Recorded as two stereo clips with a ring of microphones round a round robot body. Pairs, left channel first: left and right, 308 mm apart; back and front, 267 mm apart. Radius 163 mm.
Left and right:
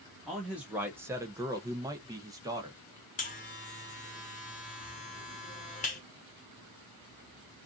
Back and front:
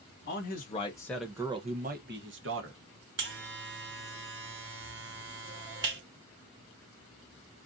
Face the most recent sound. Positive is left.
turn(degrees=30)